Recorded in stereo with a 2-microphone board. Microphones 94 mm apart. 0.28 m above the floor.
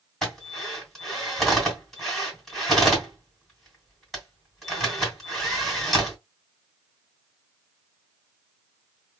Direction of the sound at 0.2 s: 5° left (ahead or behind).